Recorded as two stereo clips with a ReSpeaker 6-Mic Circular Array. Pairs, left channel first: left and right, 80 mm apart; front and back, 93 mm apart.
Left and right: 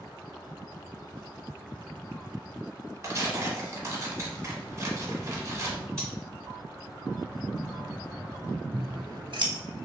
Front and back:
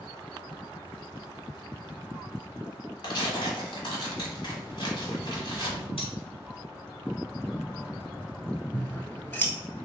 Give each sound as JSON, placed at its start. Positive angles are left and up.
{"t": 3.0, "sound": "tearing paper", "azimuth_deg": -35, "distance_m": 1.3}
{"t": 6.0, "sound": "cutlery clinking", "azimuth_deg": 10, "distance_m": 1.8}
{"t": 8.7, "sound": "scissors", "azimuth_deg": -70, "distance_m": 0.8}